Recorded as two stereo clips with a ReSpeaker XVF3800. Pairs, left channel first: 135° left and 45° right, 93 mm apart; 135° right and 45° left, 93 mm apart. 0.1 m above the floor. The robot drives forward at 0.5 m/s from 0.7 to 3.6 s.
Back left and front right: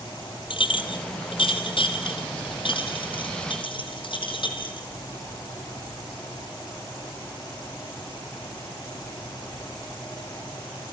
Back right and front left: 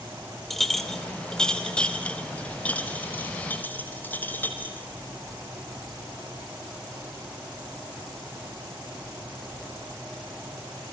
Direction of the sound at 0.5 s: 135° left.